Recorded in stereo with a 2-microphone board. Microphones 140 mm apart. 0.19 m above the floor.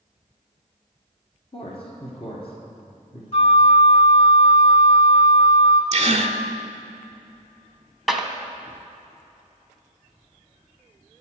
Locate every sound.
1.5 s a man speaking: 40° left (ahead or behind), 1.6 m
3.3 s a flute: 45° left (ahead or behind), 1.1 m
5.9 s a gasp: 50° right (ahead or behind), 0.6 m
8.1 s a clap: centre (ahead or behind), 0.8 m